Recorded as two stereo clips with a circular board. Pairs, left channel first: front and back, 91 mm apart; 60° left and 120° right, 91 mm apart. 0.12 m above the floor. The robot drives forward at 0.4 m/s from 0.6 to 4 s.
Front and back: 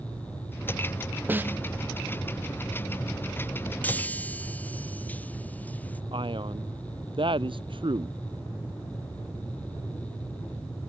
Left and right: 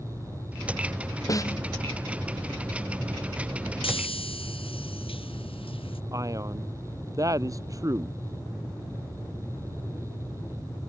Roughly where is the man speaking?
Behind.